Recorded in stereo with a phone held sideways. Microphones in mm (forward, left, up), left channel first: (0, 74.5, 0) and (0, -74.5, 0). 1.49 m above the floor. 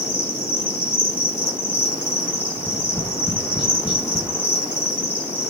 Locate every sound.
0.0 s an insect: 15° left (ahead or behind), 4.5 m
2.6 s tapping: 35° left (ahead or behind), 2 m